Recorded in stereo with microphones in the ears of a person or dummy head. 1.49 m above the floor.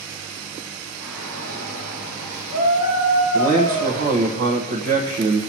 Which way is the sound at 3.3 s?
55° right (ahead or behind).